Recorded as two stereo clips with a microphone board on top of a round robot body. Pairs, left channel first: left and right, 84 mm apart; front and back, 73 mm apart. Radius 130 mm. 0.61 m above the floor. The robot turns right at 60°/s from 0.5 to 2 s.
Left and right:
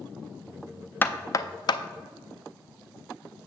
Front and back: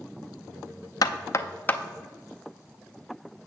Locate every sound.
1.0 s knocking: 25° left, 0.5 m; by 1.8 s 70° left, 0.5 m